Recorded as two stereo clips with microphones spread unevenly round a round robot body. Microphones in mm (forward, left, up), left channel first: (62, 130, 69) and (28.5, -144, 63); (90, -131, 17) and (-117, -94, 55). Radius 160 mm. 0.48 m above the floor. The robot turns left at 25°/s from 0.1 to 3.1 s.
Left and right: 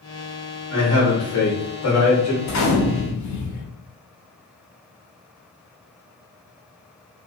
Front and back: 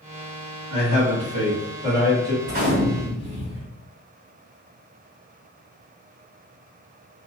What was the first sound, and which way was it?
A man speaking, 130° left.